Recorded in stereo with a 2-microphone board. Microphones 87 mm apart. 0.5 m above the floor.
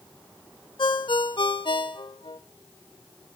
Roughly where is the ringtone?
Left.